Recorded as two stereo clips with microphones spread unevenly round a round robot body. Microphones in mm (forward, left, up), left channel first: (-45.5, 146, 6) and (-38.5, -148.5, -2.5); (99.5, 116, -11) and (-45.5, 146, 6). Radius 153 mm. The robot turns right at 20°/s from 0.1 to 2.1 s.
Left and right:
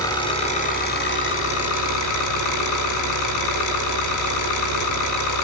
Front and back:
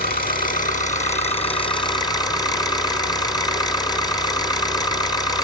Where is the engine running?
10° left, 3.5 m; by 5.4 s 50° left, 3.5 m.